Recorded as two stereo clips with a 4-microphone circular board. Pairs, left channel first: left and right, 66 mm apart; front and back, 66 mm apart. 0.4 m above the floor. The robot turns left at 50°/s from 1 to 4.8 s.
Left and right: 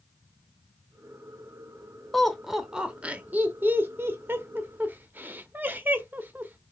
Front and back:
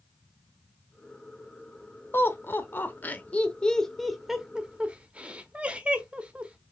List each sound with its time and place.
2.1 s laughter: 10° left, 0.9 m; by 6.6 s 125° right, 0.9 m